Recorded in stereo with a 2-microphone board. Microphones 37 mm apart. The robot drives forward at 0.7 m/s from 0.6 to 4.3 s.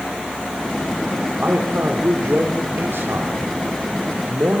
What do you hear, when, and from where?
1.4 s a man speaking: 70° right (ahead or behind), 3.5 m; by 4.6 s 75° right (ahead or behind), 3.5 m